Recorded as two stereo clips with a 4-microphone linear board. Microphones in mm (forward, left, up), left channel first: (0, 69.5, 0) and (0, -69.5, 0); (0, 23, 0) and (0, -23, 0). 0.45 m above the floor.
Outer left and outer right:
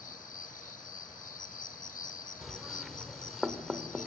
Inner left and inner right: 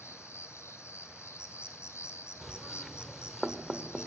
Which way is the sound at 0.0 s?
75° left (ahead or behind).